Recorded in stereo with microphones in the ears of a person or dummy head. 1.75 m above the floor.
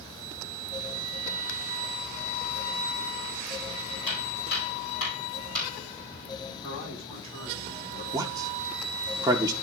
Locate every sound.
4.1 s footsteps: 45° left (ahead or behind), 4 m; by 5.7 s 55° left (ahead or behind), 3.5 m
6.6 s a man speaking: 25° left (ahead or behind), 6 m
8.1 s a man speaking: 15° right (ahead or behind), 0.6 m